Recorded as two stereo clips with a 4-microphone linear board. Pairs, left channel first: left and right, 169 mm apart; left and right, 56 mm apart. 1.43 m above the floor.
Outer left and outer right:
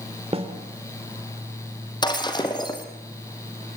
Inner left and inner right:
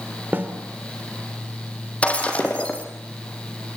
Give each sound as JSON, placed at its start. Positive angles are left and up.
{"t": 0.3, "sound": "a snare drum", "side_deg": -35, "distance_m": 2.5}
{"t": 2.0, "sound": "breaking glass", "side_deg": 25, "distance_m": 3.0}